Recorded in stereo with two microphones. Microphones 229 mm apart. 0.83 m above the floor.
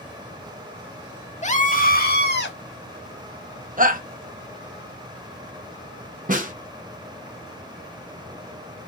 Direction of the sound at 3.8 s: 35° right (ahead or behind).